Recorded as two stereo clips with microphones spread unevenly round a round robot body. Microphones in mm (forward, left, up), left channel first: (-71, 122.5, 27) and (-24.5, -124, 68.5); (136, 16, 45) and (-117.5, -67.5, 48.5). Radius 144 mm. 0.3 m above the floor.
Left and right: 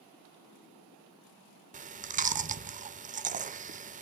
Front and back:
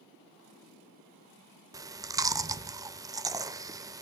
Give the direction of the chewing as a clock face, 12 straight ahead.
4 o'clock.